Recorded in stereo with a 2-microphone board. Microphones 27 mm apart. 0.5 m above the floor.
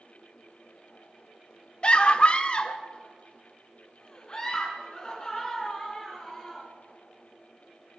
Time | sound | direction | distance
1.8 | a scream | 40° left (ahead or behind) | 0.8 m